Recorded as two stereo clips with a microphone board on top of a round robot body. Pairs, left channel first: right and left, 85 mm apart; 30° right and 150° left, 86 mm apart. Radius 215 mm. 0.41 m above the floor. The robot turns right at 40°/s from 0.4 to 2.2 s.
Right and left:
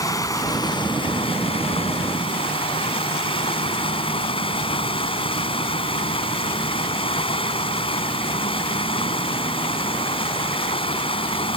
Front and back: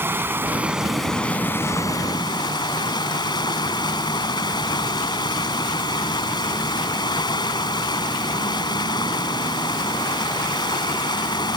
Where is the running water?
145° right; by 11.6 s 70° right.